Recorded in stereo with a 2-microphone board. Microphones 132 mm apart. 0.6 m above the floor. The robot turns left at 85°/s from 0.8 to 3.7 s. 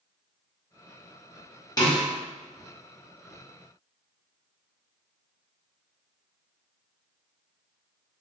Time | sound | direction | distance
1.8 | a snare drum | 30° left (ahead or behind) | 1.1 m